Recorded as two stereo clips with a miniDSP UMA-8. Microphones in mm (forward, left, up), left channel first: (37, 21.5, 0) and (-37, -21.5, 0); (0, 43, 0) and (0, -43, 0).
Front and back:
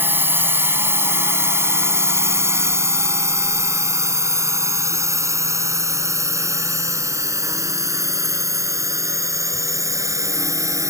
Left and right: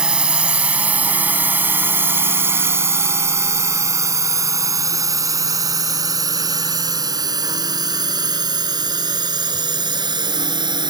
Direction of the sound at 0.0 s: 155° right.